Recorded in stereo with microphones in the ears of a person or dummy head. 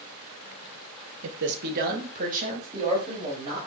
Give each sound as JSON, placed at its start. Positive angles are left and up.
{"t": 1.2, "sound": "a man speaking", "side_deg": -70, "distance_m": 1.2}